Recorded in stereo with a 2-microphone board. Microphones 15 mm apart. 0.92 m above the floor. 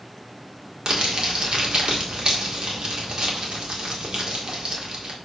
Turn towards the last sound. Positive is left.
turn(degrees=-55)  # may be behind; listen again after turning